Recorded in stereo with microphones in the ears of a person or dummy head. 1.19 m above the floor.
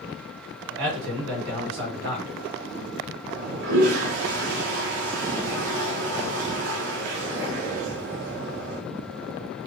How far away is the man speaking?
About 1.7 m.